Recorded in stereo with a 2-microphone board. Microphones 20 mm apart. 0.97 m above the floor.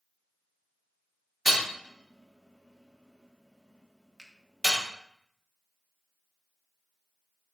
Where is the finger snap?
20° left (ahead or behind), 0.7 m.